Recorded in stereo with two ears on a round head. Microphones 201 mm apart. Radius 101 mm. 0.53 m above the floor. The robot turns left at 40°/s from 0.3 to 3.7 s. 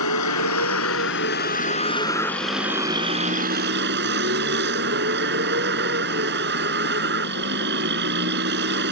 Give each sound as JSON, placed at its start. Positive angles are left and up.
{"t": 0.0, "sound": "a vehicle", "azimuth_deg": 90}